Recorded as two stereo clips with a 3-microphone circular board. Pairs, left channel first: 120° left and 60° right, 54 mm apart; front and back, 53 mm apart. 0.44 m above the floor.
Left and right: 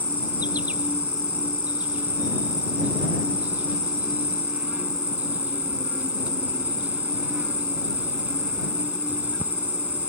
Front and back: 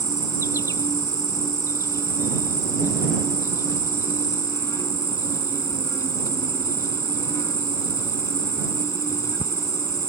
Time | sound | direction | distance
0.0 | an insect | straight ahead | ?